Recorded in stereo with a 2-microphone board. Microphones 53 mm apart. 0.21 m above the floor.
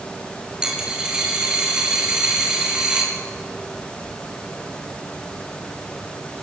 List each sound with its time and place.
0.6 s a dropped coin: 15° right (ahead or behind), 8.5 m